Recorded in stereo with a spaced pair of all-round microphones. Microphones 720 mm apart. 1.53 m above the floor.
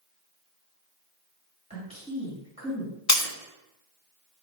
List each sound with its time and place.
1.7 s a woman speaking: 10° right (ahead or behind), 2.5 m
3.1 s breaking glass: 25° left (ahead or behind), 0.6 m